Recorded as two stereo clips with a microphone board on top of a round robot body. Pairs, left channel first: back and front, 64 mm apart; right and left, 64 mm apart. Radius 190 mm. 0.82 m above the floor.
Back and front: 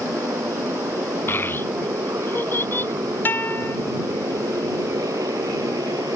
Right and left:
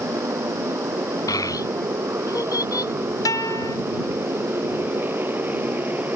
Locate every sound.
0.0 s a motorcycle: 45° left; by 6.2 s 25° left
1.3 s a child speaking: 120° right
3.2 s a guitar: 120° right